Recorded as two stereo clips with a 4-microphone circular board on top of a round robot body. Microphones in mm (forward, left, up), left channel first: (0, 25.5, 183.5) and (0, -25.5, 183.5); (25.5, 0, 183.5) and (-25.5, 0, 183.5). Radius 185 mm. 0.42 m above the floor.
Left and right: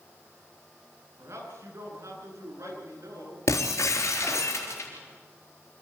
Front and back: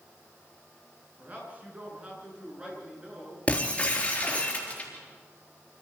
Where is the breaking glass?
70° left, 4 m.